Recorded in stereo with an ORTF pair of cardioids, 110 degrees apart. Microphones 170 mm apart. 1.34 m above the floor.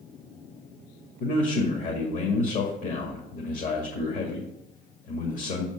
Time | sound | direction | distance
1.2 | a man speaking | 50° left | 2 m